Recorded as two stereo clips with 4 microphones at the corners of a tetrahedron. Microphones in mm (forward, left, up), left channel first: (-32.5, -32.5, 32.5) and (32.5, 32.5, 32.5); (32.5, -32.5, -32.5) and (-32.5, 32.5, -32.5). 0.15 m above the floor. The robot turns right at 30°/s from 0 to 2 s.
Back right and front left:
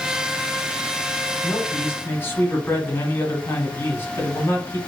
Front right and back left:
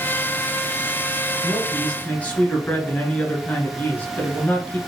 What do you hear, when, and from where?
1.4 s a man speaking: 115° right, 1.2 m; by 4.8 s 100° right, 1.2 m